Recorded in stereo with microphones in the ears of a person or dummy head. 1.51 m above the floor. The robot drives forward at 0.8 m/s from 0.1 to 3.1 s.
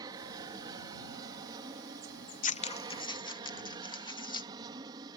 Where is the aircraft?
20° right (ahead or behind).